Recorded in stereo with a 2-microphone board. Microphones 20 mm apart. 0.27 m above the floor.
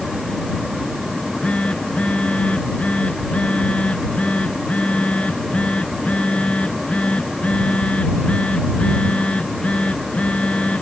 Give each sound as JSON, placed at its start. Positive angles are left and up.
{"t": 1.1, "sound": "a phone buzzing", "side_deg": 80}